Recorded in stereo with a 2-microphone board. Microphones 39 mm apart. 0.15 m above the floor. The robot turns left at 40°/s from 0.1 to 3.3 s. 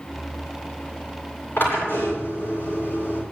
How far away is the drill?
About 9 m.